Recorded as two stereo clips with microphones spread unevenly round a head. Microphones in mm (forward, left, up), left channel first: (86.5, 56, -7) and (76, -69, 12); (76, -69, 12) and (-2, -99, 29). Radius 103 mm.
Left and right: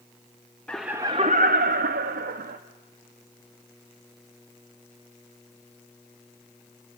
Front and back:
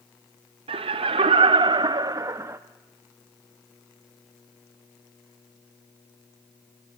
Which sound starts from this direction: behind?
Laughter, at 0.7 s.